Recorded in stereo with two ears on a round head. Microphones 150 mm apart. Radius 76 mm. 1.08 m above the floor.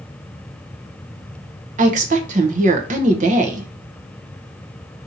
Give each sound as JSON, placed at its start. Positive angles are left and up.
{"t": 1.8, "sound": "a woman speaking", "side_deg": -45, "distance_m": 0.7}